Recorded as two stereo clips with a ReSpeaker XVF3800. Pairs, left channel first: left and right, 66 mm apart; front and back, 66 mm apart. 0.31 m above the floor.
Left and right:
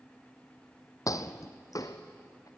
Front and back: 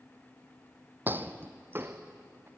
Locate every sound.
1.1 s footsteps: 120° left, 0.8 m; by 2.5 s 125° left, 1.6 m